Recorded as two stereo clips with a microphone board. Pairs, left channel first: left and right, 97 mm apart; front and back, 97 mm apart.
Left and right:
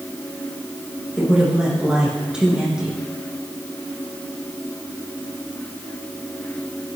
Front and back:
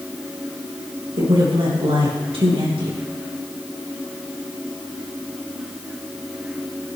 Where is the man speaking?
175° right, 8 m.